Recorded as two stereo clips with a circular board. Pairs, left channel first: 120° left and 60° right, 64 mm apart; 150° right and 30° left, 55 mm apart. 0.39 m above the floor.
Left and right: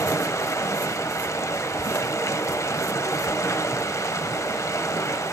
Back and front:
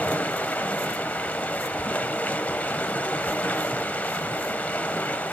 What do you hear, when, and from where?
0.0 s running water: 150° left, 0.7 m